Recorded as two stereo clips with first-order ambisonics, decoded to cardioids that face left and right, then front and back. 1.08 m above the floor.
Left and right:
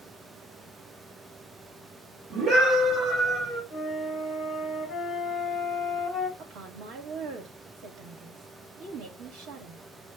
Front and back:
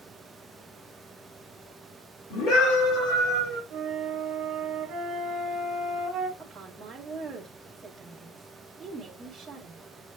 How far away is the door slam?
No door slam in this recording.